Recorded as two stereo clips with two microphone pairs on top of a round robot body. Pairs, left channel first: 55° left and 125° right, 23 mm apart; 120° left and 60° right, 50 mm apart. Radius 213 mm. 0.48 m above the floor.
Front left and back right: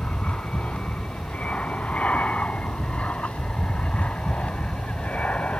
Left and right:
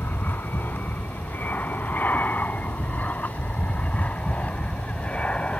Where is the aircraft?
70° left; by 5.6 s 55° left.